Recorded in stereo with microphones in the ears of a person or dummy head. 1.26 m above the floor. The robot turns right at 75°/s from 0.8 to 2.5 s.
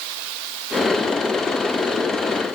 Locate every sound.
Only background noise.